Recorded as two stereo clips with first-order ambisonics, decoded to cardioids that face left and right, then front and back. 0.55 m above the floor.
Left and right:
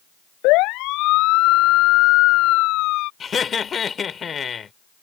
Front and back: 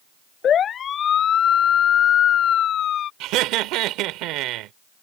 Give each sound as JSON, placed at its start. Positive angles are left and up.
{"t": 0.4, "sound": "a siren", "azimuth_deg": 60}
{"t": 3.2, "sound": "laughter", "azimuth_deg": 155}